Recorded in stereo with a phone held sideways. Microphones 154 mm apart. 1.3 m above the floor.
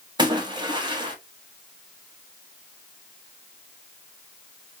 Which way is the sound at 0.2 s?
30° right (ahead or behind).